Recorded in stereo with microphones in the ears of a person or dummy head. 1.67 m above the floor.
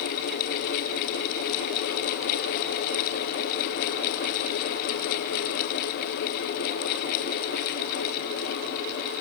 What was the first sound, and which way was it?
Only background noise.